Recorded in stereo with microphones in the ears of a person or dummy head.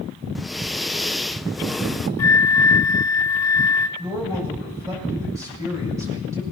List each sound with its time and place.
0.3 s breathing: centre (ahead or behind), 0.7 m
2.2 s a flute: 15° left (ahead or behind), 0.6 m
4.0 s a man speaking: 15° right (ahead or behind), 7.5 m